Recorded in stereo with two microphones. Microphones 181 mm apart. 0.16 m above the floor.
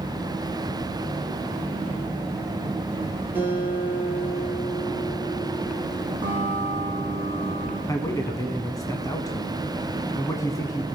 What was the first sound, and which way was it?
A guitar, 10° right (ahead or behind).